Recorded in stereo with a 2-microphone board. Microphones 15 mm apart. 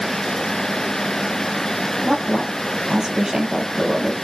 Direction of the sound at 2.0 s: 45° right (ahead or behind).